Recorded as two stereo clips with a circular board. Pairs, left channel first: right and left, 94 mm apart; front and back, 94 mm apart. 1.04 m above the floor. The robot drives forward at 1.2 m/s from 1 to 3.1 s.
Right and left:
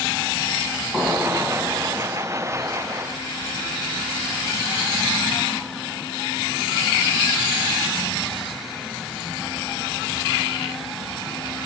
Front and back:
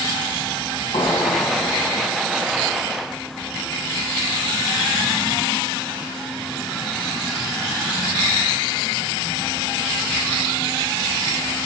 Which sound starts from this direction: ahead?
An explosion, at 0.9 s.